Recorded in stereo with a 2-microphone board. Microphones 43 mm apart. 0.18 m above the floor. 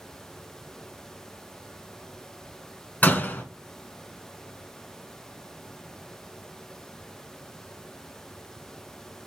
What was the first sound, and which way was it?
A door slam, 45° left (ahead or behind).